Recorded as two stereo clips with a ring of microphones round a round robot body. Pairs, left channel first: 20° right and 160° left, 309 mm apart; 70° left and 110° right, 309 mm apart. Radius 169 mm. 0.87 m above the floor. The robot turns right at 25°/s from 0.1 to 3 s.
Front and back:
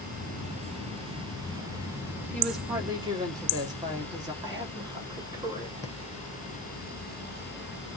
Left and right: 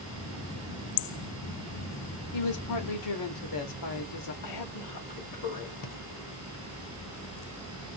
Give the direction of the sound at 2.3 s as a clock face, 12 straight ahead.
10 o'clock.